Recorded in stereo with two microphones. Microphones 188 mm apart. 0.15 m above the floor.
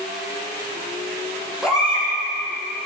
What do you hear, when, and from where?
1.6 s a baby crying: 5° right (ahead or behind), 4.5 m